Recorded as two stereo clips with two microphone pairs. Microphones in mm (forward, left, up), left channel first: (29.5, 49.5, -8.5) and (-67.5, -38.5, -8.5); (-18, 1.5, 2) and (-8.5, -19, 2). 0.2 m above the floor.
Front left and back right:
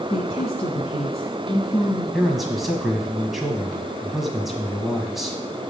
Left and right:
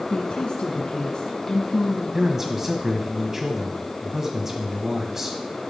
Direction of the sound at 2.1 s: 55° right.